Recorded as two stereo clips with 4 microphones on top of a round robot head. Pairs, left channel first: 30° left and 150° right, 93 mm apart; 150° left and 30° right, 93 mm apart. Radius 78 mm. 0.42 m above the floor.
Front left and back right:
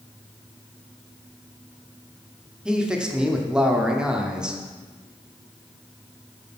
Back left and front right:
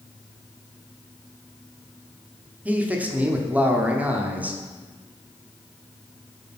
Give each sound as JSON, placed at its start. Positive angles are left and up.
{"t": 2.6, "sound": "a man speaking", "azimuth_deg": -80, "distance_m": 1.1}